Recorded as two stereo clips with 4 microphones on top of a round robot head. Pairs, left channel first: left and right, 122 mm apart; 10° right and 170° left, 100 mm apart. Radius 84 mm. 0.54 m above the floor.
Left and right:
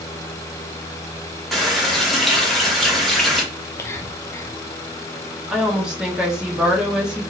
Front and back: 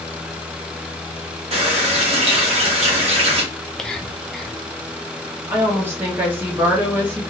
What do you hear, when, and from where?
1.5 s a running tap: straight behind, 1.1 m
3.5 s whispering: 60° left, 0.6 m
5.5 s a woman speaking: 160° right, 0.8 m